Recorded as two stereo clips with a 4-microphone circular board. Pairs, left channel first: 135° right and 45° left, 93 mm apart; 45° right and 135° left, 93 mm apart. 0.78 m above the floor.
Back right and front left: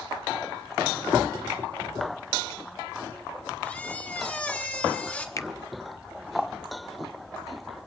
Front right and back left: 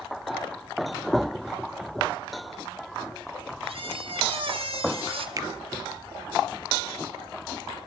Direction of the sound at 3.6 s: 150° left.